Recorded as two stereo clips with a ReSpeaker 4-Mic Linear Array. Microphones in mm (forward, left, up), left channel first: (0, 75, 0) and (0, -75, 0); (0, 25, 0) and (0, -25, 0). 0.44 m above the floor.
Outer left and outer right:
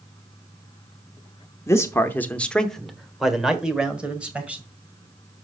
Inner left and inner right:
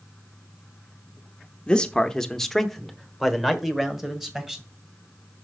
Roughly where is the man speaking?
Centre.